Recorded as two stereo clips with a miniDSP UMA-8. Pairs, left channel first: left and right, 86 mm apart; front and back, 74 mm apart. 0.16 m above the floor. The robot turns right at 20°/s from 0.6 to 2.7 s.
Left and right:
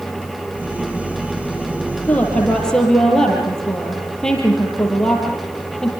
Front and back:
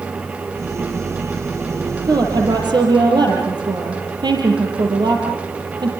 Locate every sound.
2.0 s a woman speaking: 160° left, 5 m; by 5.9 s 175° left, 5 m